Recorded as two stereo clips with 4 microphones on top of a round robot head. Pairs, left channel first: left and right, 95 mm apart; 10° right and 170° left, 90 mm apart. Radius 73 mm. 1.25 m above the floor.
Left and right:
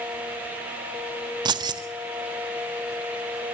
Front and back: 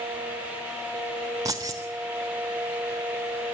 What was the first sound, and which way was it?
Keys jangling, 125° right.